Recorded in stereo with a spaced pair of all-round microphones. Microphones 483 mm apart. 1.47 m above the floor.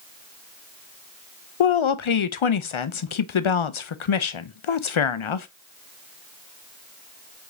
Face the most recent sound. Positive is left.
turn(degrees=75)  # may be behind; listen again after turning